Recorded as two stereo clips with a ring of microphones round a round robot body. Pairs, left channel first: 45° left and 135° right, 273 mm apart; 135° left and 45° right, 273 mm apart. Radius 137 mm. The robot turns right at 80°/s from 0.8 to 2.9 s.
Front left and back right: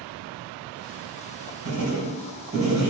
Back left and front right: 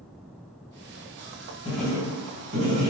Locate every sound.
1.6 s writing: 150° right, 1.7 m; by 2.9 s 50° right, 1.7 m